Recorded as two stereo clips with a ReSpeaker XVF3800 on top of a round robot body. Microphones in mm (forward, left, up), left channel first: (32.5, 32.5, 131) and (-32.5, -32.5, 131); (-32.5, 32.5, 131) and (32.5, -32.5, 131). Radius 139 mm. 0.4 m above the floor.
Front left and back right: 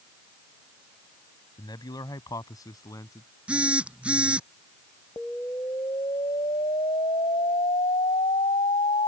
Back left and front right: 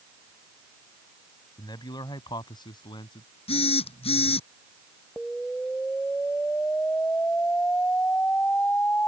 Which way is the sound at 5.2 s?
60° left.